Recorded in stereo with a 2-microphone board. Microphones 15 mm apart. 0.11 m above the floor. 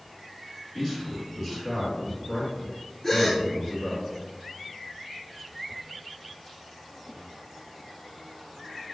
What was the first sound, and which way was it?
A man speaking, 15° left (ahead or behind).